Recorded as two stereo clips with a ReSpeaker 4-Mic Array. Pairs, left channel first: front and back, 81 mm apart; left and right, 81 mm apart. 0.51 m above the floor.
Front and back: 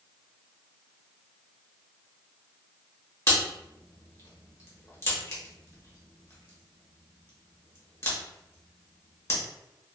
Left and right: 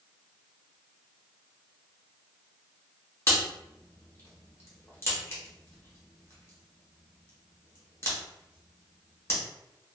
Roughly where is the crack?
Ahead left.